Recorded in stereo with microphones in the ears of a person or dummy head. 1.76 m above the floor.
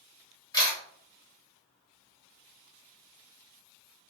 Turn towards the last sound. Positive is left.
turn(degrees=25)  # may be behind; listen again after turning